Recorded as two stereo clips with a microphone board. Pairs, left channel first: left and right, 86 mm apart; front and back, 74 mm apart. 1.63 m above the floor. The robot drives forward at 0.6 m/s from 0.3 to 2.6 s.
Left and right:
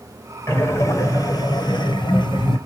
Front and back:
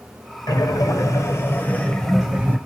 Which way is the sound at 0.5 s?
30° left.